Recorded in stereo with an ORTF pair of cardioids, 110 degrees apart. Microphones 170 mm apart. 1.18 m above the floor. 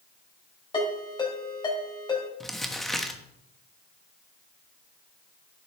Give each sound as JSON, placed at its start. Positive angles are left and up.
{"t": 0.7, "sound": "a ringtone", "azimuth_deg": 30, "distance_m": 4.5}
{"t": 2.4, "sound": "crumpling", "azimuth_deg": 0, "distance_m": 1.2}